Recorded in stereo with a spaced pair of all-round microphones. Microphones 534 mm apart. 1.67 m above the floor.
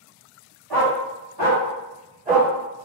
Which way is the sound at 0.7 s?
40° right (ahead or behind).